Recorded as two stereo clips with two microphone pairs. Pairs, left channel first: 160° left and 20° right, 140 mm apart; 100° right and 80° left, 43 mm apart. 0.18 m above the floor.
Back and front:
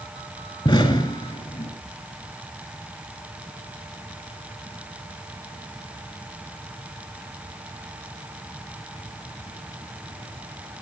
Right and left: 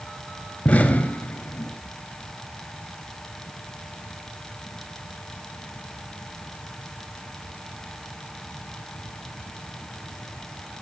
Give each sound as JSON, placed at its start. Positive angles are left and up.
{"t": 0.7, "sound": "an explosion", "azimuth_deg": -150, "distance_m": 2.0}